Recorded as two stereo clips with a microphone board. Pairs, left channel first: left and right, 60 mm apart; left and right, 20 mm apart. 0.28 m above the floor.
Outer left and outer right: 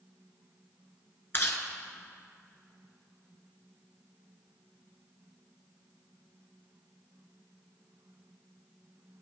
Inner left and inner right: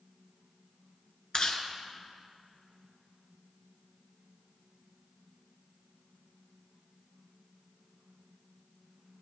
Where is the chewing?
40° left (ahead or behind), 1.3 m.